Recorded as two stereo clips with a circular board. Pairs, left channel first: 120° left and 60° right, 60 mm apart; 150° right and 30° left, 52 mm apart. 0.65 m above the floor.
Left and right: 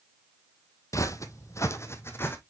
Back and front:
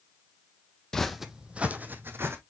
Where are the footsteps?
135° left, 1.0 m; by 2.4 s 70° left, 1.6 m.